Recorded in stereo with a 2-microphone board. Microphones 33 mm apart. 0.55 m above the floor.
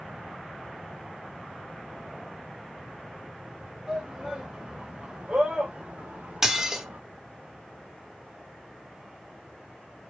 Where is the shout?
Centre (ahead or behind), 2.5 m; by 7.0 s 65° right (ahead or behind), 1.6 m.